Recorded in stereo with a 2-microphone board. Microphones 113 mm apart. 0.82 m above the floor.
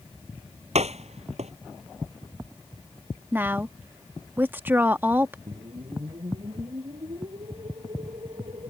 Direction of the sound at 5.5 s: 60° right (ahead or behind).